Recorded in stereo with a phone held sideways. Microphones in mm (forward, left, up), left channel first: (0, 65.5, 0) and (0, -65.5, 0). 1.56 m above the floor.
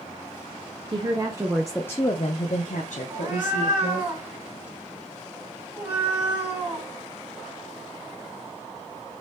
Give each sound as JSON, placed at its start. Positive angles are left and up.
{"t": 0.9, "sound": "a woman speaking", "side_deg": -40, "distance_m": 0.8}
{"t": 3.1, "sound": "a cat meowing", "side_deg": -15, "distance_m": 1.8}